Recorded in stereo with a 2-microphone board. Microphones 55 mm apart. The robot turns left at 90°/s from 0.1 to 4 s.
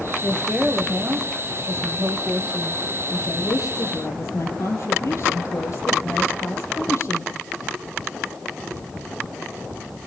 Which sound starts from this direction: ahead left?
A woman speaking, at 0.2 s.